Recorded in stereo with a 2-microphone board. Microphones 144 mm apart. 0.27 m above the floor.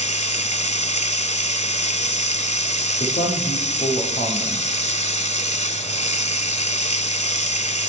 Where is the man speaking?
60° left (ahead or behind), 7.5 m.